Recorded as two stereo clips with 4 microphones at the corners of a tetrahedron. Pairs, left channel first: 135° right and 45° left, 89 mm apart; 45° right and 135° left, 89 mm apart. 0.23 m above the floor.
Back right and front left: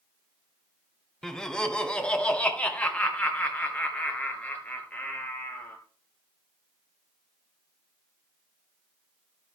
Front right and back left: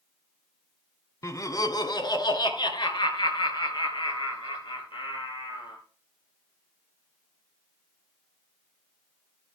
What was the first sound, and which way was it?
Laughter, 55° right.